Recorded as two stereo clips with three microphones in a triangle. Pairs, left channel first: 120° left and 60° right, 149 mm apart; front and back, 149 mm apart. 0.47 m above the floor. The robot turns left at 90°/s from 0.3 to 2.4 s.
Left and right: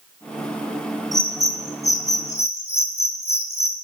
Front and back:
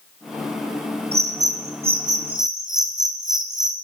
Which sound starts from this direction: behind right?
A bird, at 1.1 s.